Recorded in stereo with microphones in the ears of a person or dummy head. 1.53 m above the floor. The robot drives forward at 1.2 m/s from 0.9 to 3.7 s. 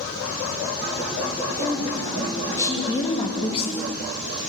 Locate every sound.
1.6 s a woman speaking: 10° left (ahead or behind), 4 m; by 3.9 s 30° left (ahead or behind), 1.5 m